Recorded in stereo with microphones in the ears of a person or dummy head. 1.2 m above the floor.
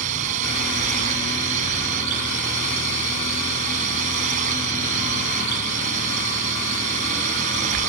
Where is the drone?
45° right (ahead or behind).